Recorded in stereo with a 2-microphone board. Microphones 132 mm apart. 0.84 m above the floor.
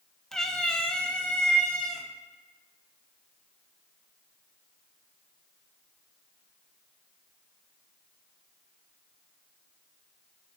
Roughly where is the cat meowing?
Centre.